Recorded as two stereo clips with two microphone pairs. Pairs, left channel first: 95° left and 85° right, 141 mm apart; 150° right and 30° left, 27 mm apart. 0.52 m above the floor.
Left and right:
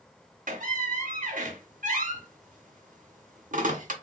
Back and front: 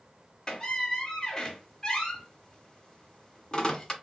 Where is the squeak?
90° right, 0.8 m.